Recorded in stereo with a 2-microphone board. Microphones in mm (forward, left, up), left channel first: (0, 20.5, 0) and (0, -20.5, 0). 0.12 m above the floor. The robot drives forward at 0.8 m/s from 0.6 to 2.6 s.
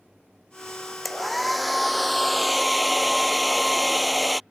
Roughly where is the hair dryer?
Centre.